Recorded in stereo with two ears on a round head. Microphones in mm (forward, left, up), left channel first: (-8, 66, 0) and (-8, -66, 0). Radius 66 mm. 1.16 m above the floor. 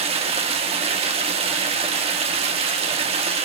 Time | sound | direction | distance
0.0 | running water | 45° right (ahead or behind) | 1.9 m